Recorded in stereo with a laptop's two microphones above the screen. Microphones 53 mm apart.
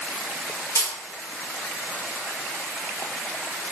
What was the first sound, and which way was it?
A camera shutter, 60° left (ahead or behind).